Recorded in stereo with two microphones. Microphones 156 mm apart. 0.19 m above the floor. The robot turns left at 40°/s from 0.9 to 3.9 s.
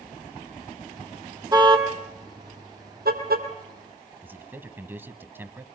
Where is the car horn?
25° right (ahead or behind), 3 m; by 3.5 s 75° right (ahead or behind), 3 m.